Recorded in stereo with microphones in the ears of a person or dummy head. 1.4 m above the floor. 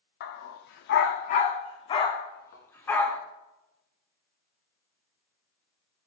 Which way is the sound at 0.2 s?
55° left (ahead or behind).